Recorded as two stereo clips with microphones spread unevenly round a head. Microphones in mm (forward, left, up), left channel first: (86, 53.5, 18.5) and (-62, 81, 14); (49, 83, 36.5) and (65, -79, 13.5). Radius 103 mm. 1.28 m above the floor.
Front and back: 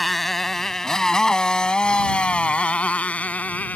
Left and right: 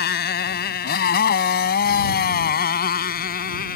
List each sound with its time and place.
0.0 s a motorcycle: 80° left; by 3.8 s 70° left